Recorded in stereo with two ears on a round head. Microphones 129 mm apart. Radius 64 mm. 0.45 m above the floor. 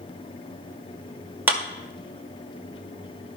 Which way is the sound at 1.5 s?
10° right (ahead or behind).